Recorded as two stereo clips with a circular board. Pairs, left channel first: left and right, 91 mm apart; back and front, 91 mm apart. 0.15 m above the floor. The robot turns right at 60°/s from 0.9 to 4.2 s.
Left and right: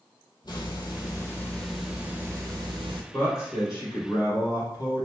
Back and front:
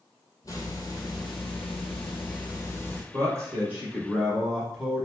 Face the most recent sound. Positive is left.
turn(degrees=95)